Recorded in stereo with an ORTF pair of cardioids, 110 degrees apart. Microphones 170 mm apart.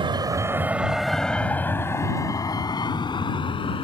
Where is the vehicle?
30° right; by 3.8 s 30° left.